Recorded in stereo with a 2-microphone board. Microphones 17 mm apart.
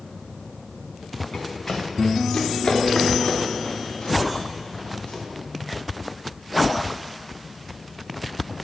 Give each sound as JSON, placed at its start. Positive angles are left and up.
{"t": 1.3, "sound": "running footsteps", "side_deg": 40, "distance_m": 2.5}